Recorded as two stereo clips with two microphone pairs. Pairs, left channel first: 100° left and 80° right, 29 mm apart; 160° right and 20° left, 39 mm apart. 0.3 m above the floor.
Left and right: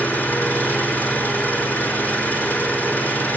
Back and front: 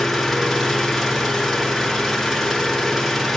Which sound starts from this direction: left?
An engine running, at 0.0 s.